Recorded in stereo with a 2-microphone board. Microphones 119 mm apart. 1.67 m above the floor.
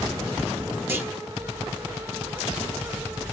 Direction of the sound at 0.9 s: 15° right (ahead or behind).